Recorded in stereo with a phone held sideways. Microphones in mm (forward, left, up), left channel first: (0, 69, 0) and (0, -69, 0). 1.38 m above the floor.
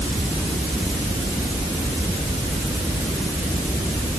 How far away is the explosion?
No explosion in this recording.